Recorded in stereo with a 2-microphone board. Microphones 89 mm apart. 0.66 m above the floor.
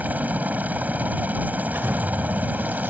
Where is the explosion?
25° right (ahead or behind).